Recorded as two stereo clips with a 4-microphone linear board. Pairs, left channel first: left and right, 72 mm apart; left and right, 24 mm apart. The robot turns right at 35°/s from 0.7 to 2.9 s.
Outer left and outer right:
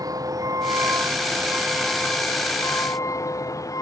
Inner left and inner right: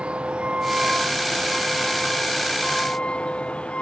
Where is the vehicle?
55° right (ahead or behind); by 3.8 s 50° left (ahead or behind).